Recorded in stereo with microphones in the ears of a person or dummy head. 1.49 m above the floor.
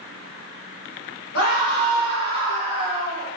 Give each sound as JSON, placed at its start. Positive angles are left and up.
{"t": 1.3, "sound": "a scream", "side_deg": 75, "distance_m": 1.1}